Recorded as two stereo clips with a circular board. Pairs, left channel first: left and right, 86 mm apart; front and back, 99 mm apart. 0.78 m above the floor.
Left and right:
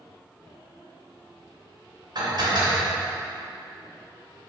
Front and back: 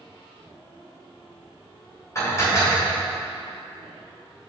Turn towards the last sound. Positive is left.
turn(degrees=-60)